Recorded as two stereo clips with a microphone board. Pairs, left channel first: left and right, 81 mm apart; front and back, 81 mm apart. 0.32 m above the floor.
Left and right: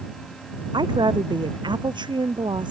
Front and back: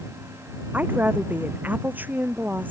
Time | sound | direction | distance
0.7 | a woman speaking | 110° right | ?